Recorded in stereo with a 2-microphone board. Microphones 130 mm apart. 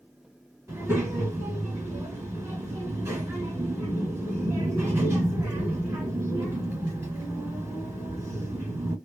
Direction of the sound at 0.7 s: 15° right (ahead or behind).